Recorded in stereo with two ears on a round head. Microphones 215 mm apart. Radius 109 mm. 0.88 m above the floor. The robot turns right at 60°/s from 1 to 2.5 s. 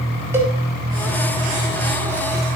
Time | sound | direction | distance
0.3 | a cowbell | 10° right (ahead or behind) | 4.5 m